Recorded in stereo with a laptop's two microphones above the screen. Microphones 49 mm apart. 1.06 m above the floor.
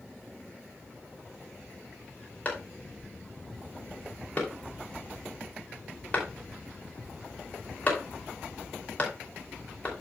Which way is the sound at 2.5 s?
35° left (ahead or behind).